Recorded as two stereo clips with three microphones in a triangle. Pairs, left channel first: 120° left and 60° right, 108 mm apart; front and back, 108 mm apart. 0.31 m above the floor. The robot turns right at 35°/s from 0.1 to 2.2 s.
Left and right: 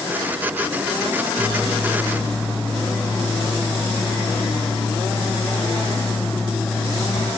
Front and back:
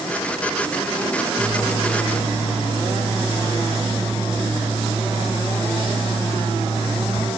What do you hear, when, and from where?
1.4 s a microwave: 170° left, 2.5 m; by 7.3 s 160° right, 2.5 m